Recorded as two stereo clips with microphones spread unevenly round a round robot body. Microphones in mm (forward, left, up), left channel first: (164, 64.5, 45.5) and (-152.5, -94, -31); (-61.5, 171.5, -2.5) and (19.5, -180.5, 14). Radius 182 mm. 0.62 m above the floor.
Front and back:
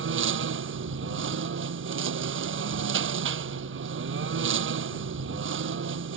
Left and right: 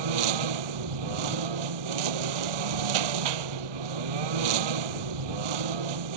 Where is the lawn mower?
95° right.